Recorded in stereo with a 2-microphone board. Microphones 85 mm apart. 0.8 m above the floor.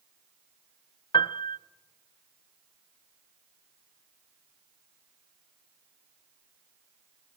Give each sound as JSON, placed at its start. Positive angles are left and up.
{"t": 1.1, "sound": "a piano", "side_deg": 65, "distance_m": 0.5}